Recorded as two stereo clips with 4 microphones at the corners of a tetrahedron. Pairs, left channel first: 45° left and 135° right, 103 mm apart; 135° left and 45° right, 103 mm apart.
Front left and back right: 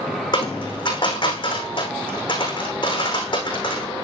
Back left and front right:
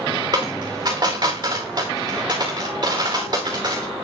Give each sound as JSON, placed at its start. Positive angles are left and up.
{"t": 0.3, "sound": "a dropped coin", "azimuth_deg": 5, "distance_m": 5.0}